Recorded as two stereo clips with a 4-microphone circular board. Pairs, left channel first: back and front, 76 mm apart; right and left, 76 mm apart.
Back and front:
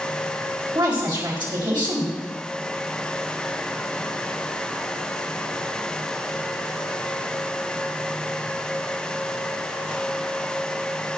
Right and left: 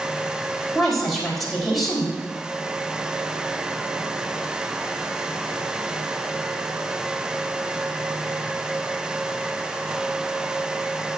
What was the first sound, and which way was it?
A woman speaking, straight ahead.